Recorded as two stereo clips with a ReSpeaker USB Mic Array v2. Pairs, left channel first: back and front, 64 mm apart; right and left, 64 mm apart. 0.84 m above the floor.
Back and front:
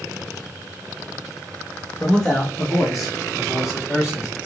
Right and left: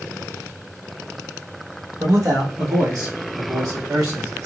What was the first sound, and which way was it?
A man speaking, 110° left.